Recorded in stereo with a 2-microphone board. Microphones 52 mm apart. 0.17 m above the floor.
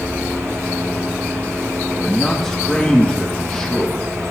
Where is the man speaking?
10° left (ahead or behind), 5.5 m.